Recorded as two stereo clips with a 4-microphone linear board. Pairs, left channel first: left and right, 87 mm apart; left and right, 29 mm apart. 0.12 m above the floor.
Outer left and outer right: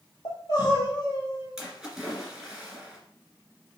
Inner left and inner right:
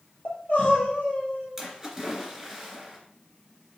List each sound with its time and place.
0.2 s crying: 50° left (ahead or behind), 1.6 m
1.6 s a splash: 5° right (ahead or behind), 1.8 m